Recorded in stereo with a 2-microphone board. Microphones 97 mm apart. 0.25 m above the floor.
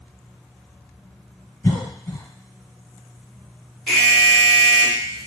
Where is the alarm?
5° left (ahead or behind), 1.6 m.